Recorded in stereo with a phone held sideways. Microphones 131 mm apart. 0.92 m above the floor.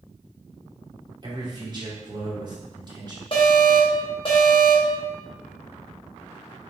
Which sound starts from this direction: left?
An alarm, at 3.3 s.